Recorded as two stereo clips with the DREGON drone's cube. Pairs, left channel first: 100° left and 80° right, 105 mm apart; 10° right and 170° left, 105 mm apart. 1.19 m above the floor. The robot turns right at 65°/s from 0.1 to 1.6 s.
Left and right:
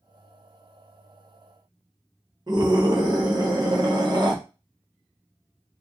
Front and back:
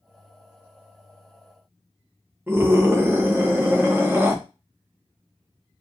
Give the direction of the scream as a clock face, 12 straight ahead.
4 o'clock.